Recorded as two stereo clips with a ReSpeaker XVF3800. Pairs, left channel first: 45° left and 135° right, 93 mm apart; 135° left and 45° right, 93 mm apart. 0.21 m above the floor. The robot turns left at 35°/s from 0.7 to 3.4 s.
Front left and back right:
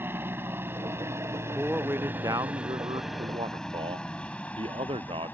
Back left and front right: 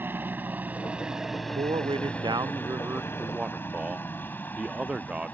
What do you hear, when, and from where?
0.0 s a helicopter: 90° right; by 5.3 s 85° left
1.6 s a man speaking: 60° right; by 5.3 s 120° right